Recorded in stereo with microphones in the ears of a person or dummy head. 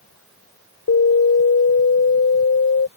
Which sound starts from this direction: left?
An alarm, at 0.9 s.